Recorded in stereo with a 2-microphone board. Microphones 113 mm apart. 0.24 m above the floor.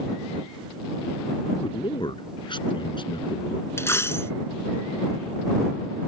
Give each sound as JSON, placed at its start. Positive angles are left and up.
{"t": 1.6, "sound": "a man speaking", "side_deg": 45}
{"t": 3.8, "sound": "a dropped coin", "side_deg": 25}